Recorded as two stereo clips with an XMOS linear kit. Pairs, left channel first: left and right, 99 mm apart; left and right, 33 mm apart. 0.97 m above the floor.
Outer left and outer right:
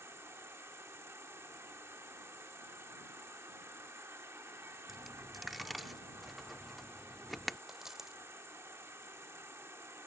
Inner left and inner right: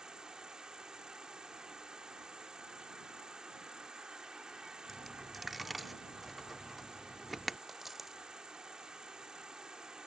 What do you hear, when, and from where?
0.0 s an insect: 30° right (ahead or behind)
4.9 s a dropped coin: centre (ahead or behind)
7.7 s a dropped coin: 5° right (ahead or behind)